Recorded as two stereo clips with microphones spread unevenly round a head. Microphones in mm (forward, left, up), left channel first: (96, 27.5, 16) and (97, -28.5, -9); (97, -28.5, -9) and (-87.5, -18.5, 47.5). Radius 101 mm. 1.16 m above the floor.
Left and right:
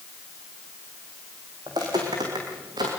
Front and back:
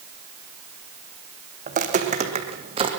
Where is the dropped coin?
I don't hear a dropped coin.